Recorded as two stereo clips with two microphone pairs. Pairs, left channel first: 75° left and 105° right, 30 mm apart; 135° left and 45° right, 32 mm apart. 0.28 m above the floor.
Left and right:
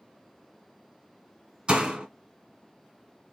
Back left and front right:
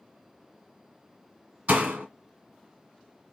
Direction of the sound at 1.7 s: 60° right.